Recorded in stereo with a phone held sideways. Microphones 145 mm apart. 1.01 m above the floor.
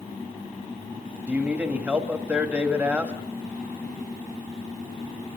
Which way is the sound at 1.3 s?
10° right (ahead or behind).